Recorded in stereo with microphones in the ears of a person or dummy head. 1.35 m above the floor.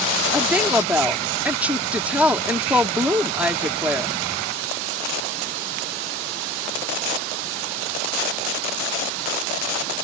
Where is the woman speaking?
10° right (ahead or behind).